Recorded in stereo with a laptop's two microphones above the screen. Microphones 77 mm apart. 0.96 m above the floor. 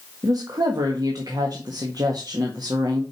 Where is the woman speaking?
65° right (ahead or behind), 1.5 m.